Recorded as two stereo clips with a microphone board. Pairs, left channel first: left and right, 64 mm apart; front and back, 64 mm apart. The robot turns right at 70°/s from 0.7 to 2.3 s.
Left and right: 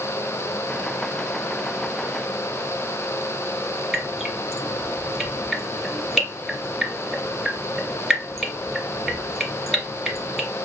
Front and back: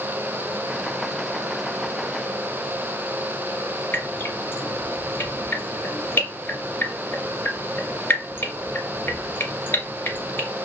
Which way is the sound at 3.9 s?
15° right.